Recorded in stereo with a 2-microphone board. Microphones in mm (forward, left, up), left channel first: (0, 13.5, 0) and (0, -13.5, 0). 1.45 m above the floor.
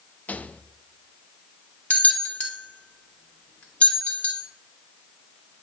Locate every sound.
0.3 s a rattle: 80° left, 0.5 m
1.9 s a bell: 60° left (ahead or behind), 1.9 m